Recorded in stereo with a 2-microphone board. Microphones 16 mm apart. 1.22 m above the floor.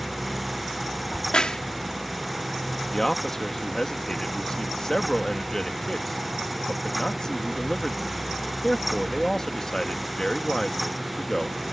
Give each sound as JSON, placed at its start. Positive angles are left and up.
{"t": 1.1, "sound": "a crack", "side_deg": 85}
{"t": 2.9, "sound": "a man speaking", "side_deg": 35}